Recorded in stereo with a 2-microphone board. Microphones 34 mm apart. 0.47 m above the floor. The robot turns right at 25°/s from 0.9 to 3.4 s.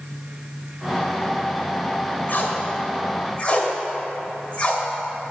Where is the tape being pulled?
55° left (ahead or behind), 1.1 m; by 4.8 s 30° left (ahead or behind), 1.1 m.